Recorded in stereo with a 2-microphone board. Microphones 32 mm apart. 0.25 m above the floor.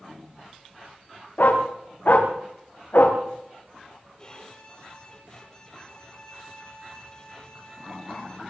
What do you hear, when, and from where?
1.4 s a dog barking: 60° left (ahead or behind), 8 m; by 3.2 s 75° left (ahead or behind), 7 m
4.2 s a violin: 25° left (ahead or behind), 7 m